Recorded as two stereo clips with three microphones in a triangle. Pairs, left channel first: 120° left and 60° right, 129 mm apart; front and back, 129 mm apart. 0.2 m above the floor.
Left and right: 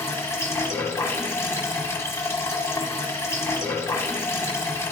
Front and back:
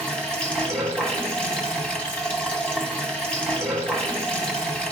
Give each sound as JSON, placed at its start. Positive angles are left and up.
{"t": 0.0, "sound": "running water", "azimuth_deg": 75, "distance_m": 1.3}